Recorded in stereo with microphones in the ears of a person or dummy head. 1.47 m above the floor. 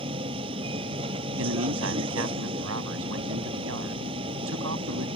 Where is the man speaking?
85° right.